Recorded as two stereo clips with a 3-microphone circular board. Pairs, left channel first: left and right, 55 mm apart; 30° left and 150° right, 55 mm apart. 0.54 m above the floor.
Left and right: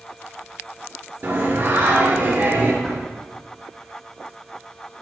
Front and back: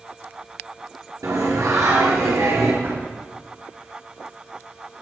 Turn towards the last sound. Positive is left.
turn(degrees=175)